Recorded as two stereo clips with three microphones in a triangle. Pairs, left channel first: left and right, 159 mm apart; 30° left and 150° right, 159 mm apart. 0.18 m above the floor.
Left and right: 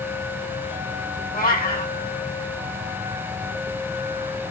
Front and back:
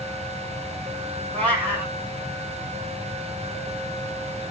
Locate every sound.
1.3 s a cat meowing: 110° left, 2.5 m